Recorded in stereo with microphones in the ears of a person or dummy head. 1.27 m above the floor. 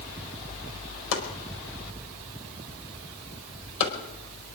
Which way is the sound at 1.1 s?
75° left (ahead or behind).